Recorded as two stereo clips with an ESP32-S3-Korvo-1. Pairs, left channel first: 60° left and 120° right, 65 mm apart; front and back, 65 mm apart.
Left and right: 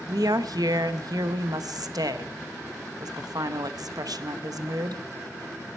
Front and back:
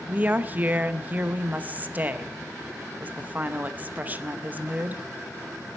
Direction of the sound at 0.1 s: 115° right.